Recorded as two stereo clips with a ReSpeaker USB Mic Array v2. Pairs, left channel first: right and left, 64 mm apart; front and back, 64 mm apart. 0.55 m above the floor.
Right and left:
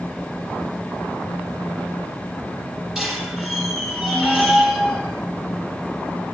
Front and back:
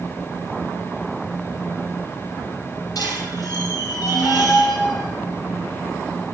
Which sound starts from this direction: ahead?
A squeak, at 3.0 s.